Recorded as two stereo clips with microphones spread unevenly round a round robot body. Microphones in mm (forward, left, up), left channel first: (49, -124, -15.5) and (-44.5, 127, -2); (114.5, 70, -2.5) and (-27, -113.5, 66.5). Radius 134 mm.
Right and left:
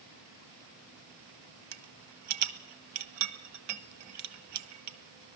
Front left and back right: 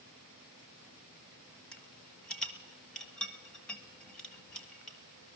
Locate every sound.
1.7 s a rattle: 140° left, 1.1 m